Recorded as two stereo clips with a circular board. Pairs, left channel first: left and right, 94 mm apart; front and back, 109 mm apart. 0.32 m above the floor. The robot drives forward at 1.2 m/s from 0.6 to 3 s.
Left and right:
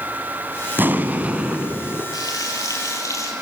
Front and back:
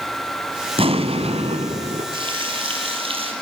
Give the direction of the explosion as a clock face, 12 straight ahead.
5 o'clock.